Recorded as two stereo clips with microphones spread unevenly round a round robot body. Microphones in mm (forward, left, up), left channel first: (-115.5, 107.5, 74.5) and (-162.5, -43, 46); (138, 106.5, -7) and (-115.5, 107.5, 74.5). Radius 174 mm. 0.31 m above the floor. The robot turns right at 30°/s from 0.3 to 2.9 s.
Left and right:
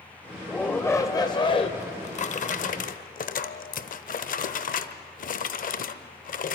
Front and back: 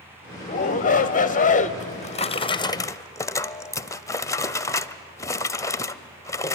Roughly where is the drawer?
Ahead left.